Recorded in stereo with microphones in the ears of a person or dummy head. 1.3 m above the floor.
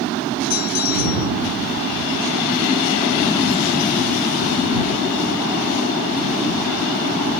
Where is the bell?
50° left (ahead or behind).